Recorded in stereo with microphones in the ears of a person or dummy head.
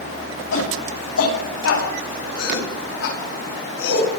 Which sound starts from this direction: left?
A shout, at 0.5 s.